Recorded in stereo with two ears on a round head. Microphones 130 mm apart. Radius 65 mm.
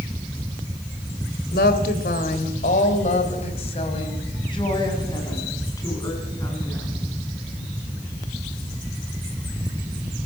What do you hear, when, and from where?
1.5 s a woman speaking: 70° left (ahead or behind), 3 m; by 6.9 s 20° left (ahead or behind), 8 m